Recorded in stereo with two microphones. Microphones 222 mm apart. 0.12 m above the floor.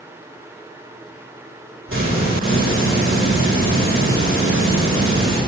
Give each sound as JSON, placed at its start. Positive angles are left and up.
{"t": 1.9, "sound": "a hiss", "side_deg": -75, "distance_m": 6.5}